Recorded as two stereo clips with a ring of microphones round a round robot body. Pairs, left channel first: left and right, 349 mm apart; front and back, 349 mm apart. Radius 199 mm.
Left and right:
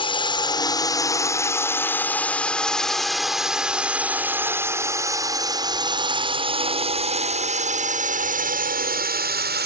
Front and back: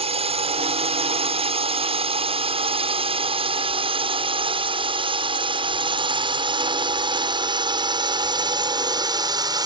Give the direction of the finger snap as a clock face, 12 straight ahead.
I don't hear a finger snap.